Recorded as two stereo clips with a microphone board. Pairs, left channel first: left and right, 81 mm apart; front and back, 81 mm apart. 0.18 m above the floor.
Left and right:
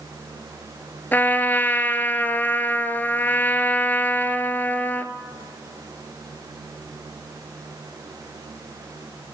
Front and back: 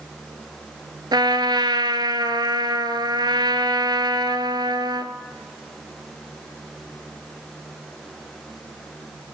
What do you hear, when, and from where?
1.1 s a trumpet: 155° left, 1.0 m